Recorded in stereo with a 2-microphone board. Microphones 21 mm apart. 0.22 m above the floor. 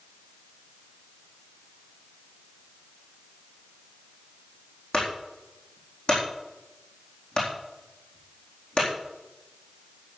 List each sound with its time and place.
4.9 s a clunk: 50° left (ahead or behind), 4 m